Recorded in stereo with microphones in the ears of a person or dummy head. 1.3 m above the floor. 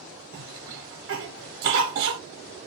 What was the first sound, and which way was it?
A cough, 50° right (ahead or behind).